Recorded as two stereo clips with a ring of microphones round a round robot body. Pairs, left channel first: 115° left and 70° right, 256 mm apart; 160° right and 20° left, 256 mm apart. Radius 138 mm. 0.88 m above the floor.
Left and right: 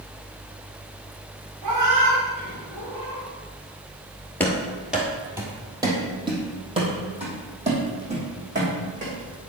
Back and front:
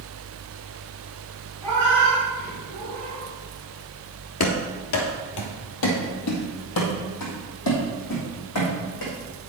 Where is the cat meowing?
75° right, 4 m; by 3.2 s 80° right, 6 m.